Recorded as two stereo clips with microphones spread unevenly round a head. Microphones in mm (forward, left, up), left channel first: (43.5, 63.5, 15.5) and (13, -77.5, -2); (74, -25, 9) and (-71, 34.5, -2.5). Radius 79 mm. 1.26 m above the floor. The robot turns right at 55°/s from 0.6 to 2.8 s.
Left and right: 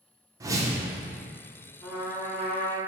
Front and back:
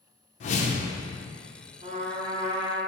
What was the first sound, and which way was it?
A whoosh, 35° right.